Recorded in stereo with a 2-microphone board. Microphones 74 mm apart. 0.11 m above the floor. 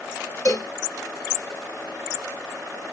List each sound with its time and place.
0.5 s a cowbell: 50° left (ahead or behind), 1.3 m